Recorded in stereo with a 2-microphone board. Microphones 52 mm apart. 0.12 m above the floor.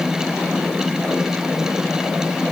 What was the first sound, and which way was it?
Only background noise.